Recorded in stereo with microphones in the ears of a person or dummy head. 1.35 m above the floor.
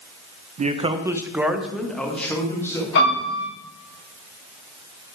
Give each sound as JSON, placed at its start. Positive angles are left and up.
{"t": 0.6, "sound": "a man speaking", "side_deg": -45, "distance_m": 0.7}
{"t": 3.0, "sound": "a piano", "side_deg": 65, "distance_m": 4.5}